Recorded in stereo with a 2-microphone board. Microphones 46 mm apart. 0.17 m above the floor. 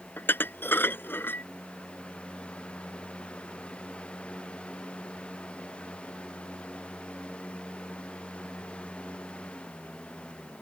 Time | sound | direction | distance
0.2 | dishes clattering | 50° left (ahead or behind) | ?